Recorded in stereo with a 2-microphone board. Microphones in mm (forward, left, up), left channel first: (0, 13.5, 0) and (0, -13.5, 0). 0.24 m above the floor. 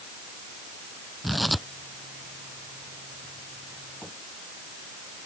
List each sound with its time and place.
1.2 s tearing paper: centre (ahead or behind)